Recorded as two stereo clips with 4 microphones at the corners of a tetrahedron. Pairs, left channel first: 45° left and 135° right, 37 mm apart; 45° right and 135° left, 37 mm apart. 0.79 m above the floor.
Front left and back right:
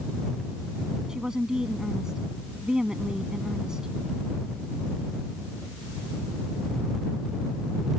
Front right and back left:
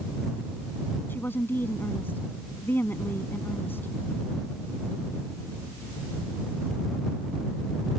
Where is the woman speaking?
65° right.